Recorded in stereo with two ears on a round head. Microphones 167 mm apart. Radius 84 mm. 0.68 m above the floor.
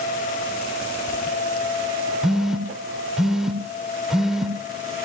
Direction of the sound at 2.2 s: 5° right (ahead or behind).